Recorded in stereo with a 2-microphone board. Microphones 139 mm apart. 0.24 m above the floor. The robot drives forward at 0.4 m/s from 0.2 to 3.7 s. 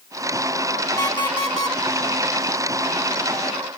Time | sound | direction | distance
1.0 | an alarm clock | 30° left (ahead or behind) | 1.3 m